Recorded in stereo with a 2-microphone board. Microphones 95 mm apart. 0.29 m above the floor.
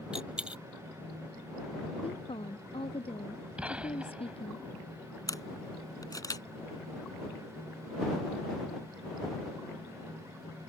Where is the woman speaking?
85° left.